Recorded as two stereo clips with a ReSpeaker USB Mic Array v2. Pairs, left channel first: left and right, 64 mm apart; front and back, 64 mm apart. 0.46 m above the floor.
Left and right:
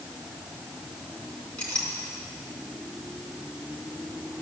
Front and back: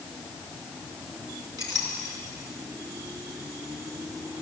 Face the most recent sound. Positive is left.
turn(degrees=165)